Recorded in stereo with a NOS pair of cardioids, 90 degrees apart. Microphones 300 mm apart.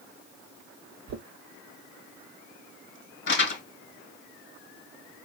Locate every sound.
1.1 s knocking: 65° right, 1.3 m
3.3 s crumpling: 40° left, 2 m